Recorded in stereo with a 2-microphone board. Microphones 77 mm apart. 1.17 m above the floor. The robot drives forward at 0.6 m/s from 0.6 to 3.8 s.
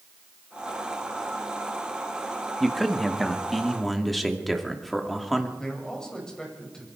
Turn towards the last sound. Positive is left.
turn(degrees=10)  # may be behind; listen again after turning